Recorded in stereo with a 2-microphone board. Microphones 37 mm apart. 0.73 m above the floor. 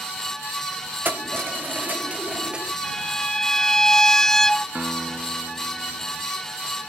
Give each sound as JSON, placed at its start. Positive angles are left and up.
{"t": 1.1, "sound": "keys jangling", "side_deg": -65}
{"t": 2.8, "sound": "a violin", "side_deg": 15}
{"t": 4.8, "sound": "a guitar", "side_deg": -45}